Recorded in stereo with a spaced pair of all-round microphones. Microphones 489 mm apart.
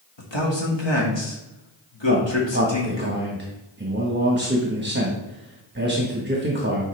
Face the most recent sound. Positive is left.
turn(degrees=-20)  # may be behind; listen again after turning